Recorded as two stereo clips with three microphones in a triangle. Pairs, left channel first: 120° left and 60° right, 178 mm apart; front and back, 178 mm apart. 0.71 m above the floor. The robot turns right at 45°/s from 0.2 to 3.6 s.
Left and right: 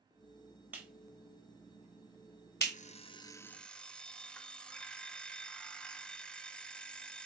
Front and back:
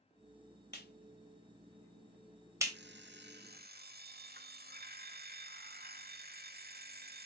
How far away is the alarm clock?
About 1.1 m.